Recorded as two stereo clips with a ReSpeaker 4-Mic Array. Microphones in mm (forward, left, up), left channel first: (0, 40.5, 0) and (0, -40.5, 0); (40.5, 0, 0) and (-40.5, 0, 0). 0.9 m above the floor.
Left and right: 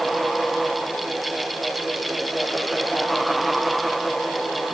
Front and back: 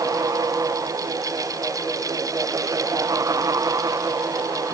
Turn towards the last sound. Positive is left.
No sound to turn to.